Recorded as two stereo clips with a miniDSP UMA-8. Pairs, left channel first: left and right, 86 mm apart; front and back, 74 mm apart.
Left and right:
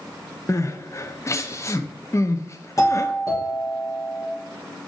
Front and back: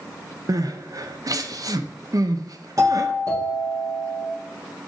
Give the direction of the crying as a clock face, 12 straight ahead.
7 o'clock.